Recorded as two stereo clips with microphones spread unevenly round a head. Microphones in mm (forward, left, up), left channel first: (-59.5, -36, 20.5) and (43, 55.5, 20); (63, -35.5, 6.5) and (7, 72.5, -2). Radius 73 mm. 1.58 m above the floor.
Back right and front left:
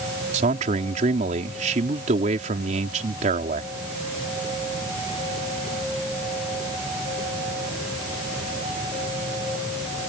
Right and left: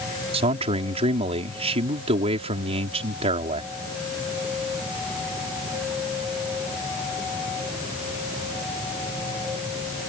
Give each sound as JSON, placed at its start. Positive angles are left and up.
{"t": 0.3, "sound": "a man speaking", "azimuth_deg": 80}